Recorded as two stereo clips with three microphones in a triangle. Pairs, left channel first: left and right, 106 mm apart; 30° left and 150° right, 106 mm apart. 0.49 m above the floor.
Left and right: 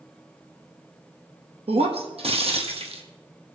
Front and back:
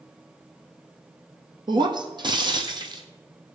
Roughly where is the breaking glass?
Right.